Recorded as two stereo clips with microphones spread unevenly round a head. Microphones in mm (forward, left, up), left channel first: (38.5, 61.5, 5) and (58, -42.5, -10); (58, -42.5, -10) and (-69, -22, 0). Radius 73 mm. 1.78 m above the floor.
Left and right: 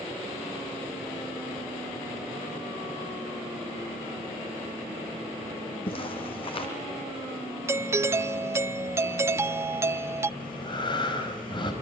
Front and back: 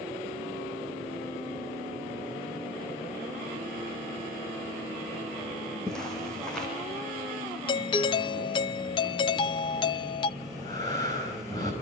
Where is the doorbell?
35° right, 0.7 m.